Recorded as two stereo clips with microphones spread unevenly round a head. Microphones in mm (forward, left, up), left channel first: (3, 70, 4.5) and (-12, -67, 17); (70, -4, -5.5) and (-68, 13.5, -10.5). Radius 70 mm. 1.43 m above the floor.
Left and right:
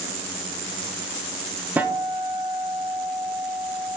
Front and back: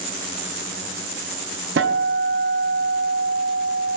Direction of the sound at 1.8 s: 175° right.